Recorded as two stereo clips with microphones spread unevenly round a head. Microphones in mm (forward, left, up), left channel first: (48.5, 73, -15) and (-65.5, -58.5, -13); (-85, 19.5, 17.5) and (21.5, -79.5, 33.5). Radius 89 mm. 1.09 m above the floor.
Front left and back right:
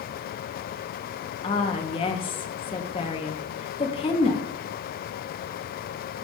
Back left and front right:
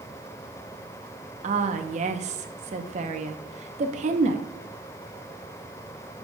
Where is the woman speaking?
5° right, 1.0 m.